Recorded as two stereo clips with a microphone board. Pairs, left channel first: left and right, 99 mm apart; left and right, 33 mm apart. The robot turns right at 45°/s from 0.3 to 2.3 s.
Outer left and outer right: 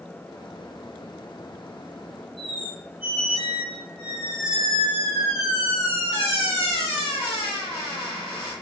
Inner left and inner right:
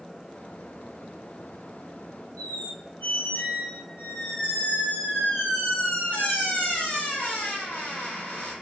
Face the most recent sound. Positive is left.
turn(degrees=75)  # may be behind; listen again after turning